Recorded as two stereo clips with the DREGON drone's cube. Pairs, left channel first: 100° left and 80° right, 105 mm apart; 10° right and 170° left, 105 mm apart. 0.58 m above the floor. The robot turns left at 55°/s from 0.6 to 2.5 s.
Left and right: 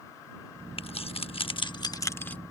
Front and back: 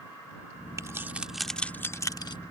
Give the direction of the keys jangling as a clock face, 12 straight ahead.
8 o'clock.